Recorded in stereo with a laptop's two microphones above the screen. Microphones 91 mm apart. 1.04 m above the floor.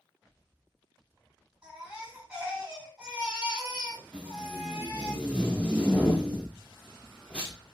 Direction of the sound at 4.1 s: 15° left (ahead or behind).